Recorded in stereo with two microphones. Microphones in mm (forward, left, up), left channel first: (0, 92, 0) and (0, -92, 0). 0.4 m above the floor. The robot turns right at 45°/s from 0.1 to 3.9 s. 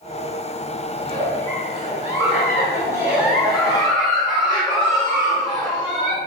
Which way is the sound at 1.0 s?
20° right (ahead or behind).